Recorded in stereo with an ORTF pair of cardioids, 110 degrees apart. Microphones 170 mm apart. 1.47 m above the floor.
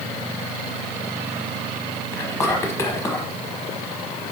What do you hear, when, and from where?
2.1 s whispering: 15° left, 0.7 m